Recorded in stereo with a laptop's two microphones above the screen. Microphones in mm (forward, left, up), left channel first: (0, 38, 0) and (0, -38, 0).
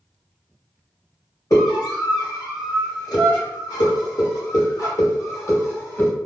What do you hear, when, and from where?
1.5 s a scream: 45° left (ahead or behind), 1.8 m; by 6.1 s 25° left (ahead or behind), 1.4 m